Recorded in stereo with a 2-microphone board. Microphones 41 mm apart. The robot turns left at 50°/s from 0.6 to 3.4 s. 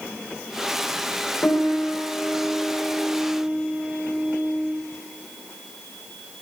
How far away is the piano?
About 2.5 m.